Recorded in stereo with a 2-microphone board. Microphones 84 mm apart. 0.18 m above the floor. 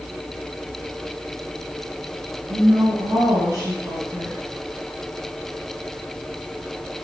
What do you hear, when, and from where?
2.5 s a woman speaking: 45° right (ahead or behind), 2.0 m